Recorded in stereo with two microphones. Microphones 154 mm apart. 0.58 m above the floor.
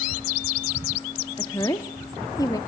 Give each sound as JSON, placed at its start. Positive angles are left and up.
{"t": 1.4, "sound": "a woman speaking", "side_deg": 20, "distance_m": 1.0}